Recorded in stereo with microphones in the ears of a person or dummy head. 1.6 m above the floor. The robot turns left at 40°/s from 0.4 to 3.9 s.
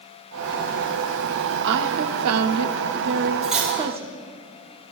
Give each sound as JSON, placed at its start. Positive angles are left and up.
{"t": 1.6, "sound": "a woman speaking", "azimuth_deg": -55, "distance_m": 0.6}
{"t": 3.4, "sound": "cutlery clinking", "side_deg": 5, "distance_m": 1.9}